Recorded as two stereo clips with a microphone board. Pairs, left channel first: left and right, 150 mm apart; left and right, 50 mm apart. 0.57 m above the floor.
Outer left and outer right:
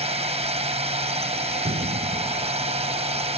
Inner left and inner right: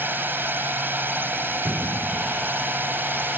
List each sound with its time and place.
0.0 s a drone: 45° right (ahead or behind)
1.6 s an explosion: 65° right (ahead or behind)